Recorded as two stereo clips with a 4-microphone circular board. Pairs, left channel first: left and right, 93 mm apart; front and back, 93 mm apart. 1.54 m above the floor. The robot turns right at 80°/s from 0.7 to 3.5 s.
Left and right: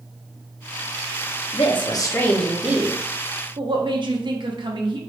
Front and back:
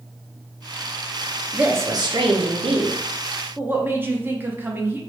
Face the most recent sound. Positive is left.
turn(degrees=-115)